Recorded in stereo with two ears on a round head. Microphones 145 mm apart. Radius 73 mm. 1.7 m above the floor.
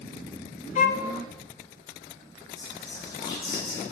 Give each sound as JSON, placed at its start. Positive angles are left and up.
{"t": 0.8, "sound": "a violin", "side_deg": 50, "distance_m": 0.6}
{"t": 2.6, "sound": "whispering", "side_deg": 30, "distance_m": 3.0}